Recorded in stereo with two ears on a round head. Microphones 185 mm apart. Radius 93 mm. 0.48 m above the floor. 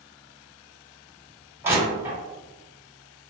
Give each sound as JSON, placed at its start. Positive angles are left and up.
{"t": 1.6, "sound": "crushing", "side_deg": -10, "distance_m": 1.8}